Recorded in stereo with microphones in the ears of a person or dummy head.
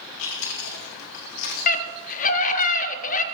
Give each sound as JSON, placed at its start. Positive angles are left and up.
{"t": 0.2, "sound": "chewing", "side_deg": 80, "distance_m": 2.5}
{"t": 1.7, "sound": "a scream", "side_deg": 45, "distance_m": 1.2}